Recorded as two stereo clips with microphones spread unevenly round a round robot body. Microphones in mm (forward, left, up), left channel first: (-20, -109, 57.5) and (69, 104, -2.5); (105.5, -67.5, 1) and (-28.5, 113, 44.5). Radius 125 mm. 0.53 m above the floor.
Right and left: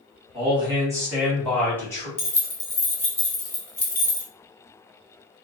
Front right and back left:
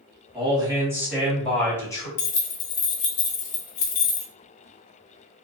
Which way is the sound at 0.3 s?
55° left.